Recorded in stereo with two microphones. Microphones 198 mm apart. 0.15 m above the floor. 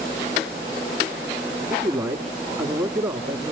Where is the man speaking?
15° right (ahead or behind), 1.0 m.